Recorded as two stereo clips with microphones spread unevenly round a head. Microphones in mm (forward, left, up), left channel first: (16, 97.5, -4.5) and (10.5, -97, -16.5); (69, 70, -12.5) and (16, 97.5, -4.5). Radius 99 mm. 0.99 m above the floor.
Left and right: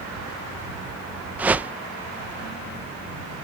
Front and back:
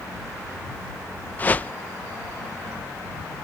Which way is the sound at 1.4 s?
20° right.